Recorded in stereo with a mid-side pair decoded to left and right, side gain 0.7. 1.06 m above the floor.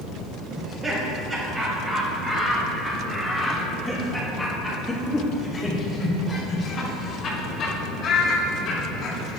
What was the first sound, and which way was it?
Laughter, 30° right.